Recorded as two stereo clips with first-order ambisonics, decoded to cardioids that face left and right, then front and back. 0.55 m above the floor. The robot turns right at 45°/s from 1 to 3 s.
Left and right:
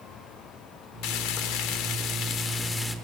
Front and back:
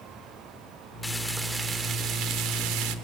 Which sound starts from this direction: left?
Frying, at 1.0 s.